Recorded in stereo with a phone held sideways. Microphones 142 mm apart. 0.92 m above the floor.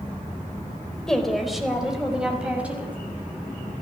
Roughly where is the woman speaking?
Centre.